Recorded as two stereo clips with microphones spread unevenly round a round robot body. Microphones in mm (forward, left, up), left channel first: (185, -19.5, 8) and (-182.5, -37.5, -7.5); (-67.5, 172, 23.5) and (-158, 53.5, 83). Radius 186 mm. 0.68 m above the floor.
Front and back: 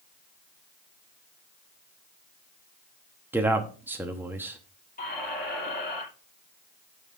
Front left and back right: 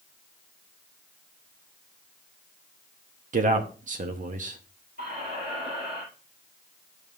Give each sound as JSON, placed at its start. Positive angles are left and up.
{"t": 3.3, "sound": "a man speaking", "azimuth_deg": -100, "distance_m": 0.9}
{"t": 5.0, "sound": "a squeak", "azimuth_deg": -65, "distance_m": 6.5}